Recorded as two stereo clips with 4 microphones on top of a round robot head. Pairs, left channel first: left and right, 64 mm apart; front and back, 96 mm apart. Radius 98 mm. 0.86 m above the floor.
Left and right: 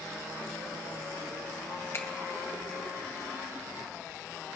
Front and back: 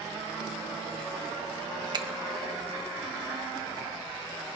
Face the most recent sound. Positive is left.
turn(degrees=140)